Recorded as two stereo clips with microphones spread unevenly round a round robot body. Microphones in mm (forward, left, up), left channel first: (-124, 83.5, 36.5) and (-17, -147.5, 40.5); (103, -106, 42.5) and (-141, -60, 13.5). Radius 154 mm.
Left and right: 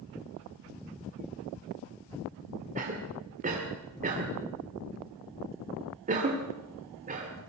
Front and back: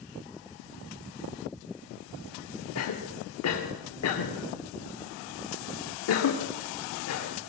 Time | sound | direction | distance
2.8 | a cough | 5° right | 1.8 m